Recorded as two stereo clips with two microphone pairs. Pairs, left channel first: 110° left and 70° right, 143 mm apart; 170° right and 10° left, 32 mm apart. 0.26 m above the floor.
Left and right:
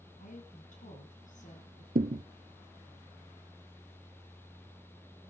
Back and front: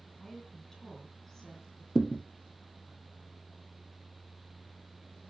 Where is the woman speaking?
115° left, 3 m.